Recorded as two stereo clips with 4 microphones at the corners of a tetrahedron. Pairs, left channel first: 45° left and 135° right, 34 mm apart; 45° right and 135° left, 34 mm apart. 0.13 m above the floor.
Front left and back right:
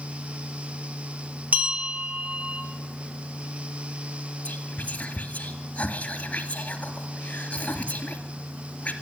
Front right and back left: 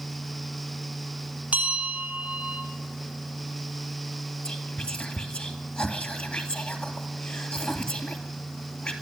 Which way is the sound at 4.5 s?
Straight ahead.